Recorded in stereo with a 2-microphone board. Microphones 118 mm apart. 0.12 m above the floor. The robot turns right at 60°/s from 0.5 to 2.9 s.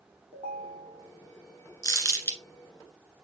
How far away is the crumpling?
About 1.6 m.